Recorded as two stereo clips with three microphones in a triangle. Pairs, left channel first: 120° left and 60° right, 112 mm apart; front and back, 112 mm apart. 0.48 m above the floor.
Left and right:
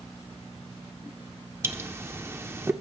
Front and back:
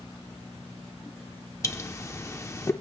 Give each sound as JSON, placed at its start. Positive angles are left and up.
{"t": 1.6, "sound": "a pop", "azimuth_deg": -25, "distance_m": 0.8}